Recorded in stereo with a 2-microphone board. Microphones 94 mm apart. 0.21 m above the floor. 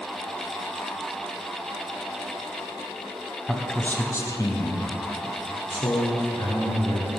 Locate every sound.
3.5 s a man speaking: 5° left (ahead or behind), 1.2 m; by 7.1 s 70° left (ahead or behind), 3 m